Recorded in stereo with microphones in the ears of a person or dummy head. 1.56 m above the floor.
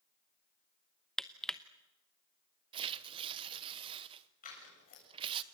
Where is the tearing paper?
30° right (ahead or behind), 0.9 m.